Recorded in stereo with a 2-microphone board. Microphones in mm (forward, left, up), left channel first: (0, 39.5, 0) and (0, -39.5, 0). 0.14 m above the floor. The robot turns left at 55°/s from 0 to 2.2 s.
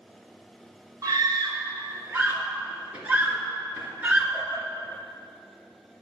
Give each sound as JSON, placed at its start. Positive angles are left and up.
{"t": 1.0, "sound": "a scream", "side_deg": -50, "distance_m": 2.5}